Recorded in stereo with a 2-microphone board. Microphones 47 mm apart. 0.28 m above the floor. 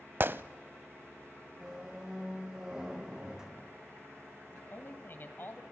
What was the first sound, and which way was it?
A gunshot, 50° right (ahead or behind).